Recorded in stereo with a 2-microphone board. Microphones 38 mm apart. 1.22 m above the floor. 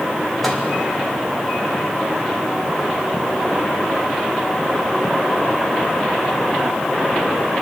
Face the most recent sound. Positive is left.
turn(degrees=-5)  # may be behind; listen again after turning